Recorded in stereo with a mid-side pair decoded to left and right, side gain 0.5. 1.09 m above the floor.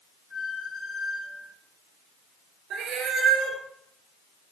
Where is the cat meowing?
65° right, 4 m.